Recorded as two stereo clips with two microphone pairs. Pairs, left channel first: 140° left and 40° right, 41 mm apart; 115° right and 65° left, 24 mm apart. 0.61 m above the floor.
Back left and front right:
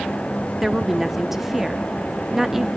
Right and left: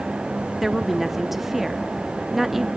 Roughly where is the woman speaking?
Ahead.